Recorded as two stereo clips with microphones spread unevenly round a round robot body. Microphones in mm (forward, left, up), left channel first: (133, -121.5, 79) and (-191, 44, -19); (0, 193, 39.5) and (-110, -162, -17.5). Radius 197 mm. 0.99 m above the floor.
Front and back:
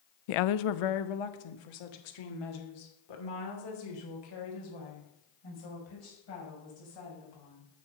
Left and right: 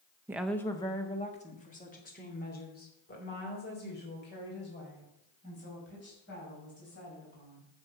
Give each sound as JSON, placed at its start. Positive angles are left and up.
{"t": 0.3, "sound": "a woman speaking", "azimuth_deg": -30, "distance_m": 0.6}